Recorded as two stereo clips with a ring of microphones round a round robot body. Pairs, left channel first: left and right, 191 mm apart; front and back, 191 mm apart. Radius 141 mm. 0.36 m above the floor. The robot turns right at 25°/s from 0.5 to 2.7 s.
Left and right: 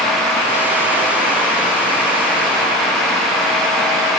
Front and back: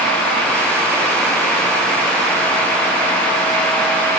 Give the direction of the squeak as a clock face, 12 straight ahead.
I don't hear a squeak.